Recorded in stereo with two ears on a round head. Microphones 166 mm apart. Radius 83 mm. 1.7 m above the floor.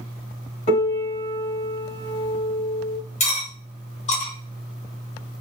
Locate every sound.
0.7 s a piano: 35° left (ahead or behind), 1.3 m
3.2 s cutlery clinking: 40° left (ahead or behind), 1.0 m